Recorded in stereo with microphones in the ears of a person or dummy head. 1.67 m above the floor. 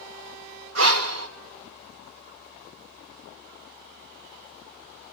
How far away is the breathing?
About 1.7 m.